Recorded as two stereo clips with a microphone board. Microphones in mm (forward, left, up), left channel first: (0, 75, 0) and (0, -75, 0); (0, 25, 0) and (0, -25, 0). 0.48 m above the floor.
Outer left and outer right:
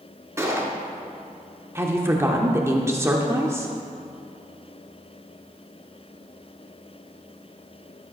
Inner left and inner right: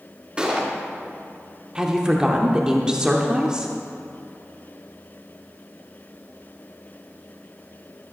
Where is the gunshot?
20° right (ahead or behind), 1.9 m.